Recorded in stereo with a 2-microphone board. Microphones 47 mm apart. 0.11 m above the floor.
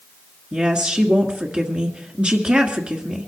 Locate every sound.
0.5 s a woman speaking: 25° right (ahead or behind), 1.7 m